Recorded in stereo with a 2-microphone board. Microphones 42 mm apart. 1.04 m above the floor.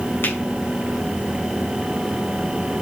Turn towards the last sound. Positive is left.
turn(degrees=55)  # may be behind; listen again after turning